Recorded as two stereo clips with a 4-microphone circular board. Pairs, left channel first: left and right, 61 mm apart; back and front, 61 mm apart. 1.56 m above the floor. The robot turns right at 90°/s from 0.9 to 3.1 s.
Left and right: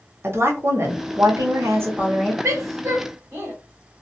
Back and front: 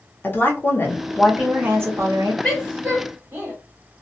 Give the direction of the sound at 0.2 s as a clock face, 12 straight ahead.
4 o'clock.